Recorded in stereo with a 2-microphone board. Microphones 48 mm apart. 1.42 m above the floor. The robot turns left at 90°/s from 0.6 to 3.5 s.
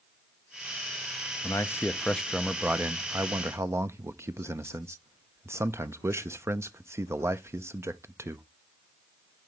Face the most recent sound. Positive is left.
turn(degrees=-105)